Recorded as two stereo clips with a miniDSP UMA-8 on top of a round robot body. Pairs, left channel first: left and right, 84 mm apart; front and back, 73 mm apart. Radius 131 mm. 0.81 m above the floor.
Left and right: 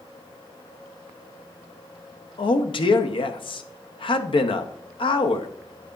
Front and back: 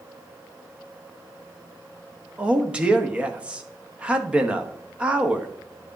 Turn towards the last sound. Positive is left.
turn(degrees=105)